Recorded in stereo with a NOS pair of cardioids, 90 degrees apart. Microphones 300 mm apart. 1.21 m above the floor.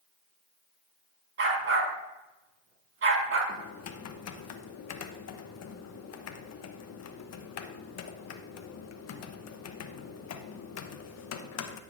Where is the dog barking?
45° right, 3 m.